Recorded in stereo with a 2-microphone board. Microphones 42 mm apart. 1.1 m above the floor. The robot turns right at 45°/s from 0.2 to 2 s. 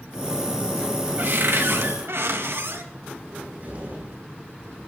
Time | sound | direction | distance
1.2 | a cupboard door | 125° right | 1.7 m
3.3 | a cupboard door | 35° right (ahead or behind) | 9.5 m